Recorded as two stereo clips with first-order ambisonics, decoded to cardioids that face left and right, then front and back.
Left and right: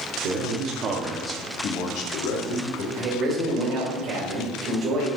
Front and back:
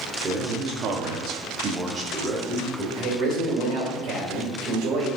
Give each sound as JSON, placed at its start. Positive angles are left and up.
{"t": 0.2, "sound": "a man speaking", "azimuth_deg": -115, "distance_m": 1.7}
{"t": 3.0, "sound": "a man speaking", "azimuth_deg": -150, "distance_m": 2.5}